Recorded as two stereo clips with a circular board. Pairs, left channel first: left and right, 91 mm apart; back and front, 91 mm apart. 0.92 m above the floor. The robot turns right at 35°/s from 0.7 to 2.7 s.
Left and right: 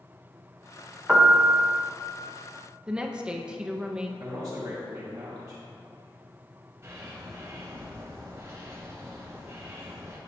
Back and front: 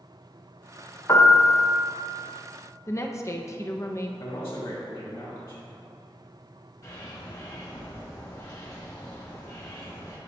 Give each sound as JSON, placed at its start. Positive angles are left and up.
{"t": 1.1, "sound": "a piano", "azimuth_deg": -160, "distance_m": 0.8}
{"t": 2.9, "sound": "a woman speaking", "azimuth_deg": -160, "distance_m": 0.5}
{"t": 4.2, "sound": "a man speaking", "azimuth_deg": -140, "distance_m": 1.9}
{"t": 6.8, "sound": "a bird", "azimuth_deg": -140, "distance_m": 1.3}